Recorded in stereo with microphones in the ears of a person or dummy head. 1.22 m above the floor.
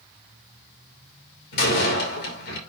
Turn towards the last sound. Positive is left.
turn(degrees=60)  # may be behind; listen again after turning